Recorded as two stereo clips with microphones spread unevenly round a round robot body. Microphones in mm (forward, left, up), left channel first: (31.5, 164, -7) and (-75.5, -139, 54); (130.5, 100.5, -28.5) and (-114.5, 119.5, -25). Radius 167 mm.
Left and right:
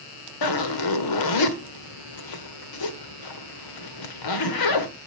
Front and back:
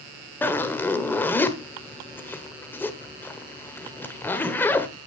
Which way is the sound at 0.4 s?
80° left.